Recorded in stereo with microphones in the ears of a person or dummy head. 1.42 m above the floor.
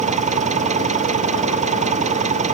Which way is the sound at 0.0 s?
35° right (ahead or behind).